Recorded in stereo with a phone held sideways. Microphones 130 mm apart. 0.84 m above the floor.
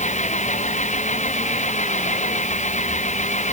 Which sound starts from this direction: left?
An engine running, at 0.0 s.